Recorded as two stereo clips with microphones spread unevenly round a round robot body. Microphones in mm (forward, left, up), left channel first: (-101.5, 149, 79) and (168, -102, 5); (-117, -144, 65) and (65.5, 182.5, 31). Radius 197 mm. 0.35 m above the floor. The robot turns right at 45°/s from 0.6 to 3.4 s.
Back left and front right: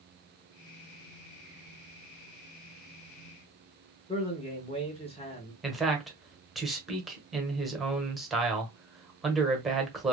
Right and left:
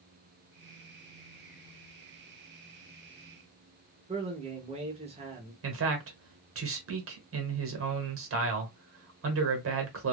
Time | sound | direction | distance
4.1 | a man speaking | 60° left | 0.8 m
5.6 | a man speaking | 35° left | 1.3 m